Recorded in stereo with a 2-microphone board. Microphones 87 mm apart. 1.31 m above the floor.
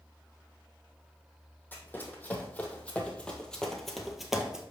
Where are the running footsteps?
25° left (ahead or behind), 2.5 m; by 4.6 s 10° right (ahead or behind), 1.5 m.